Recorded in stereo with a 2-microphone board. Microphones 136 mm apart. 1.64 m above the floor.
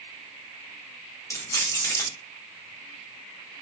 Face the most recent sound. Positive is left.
turn(degrees=20)  # may be behind; listen again after turning